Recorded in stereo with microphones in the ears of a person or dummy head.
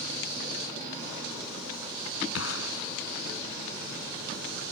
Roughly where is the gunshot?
Left.